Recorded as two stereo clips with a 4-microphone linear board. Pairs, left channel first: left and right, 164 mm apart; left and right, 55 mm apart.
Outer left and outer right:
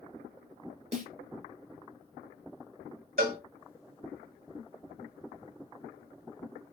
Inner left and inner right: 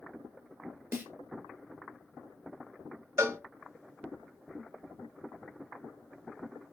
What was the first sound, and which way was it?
A snare drum, 45° right (ahead or behind).